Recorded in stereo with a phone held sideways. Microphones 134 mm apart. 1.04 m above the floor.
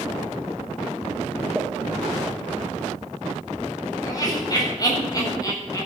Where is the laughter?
30° left (ahead or behind), 7 m.